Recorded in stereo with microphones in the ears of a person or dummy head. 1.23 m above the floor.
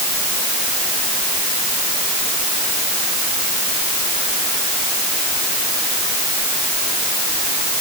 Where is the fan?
I don't hear a fan.